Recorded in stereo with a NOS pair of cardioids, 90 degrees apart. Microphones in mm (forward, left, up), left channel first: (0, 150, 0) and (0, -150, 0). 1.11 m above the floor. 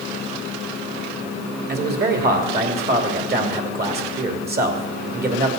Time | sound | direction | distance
1.7 | a man speaking | 35° right | 2.5 m